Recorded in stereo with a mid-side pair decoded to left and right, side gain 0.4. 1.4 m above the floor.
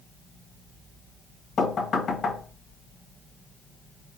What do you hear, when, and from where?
1.6 s knocking: 55° left, 1.1 m